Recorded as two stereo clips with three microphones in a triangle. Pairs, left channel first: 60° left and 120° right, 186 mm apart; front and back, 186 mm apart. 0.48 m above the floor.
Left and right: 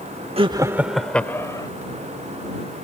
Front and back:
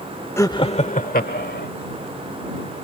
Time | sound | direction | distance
0.4 | laughter | 70° right | ?